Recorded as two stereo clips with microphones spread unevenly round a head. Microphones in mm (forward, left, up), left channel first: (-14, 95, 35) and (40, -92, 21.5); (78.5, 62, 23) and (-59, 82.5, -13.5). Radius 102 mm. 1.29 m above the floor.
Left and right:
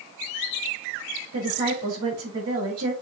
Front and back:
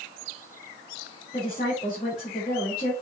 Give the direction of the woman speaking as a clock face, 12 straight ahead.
2 o'clock.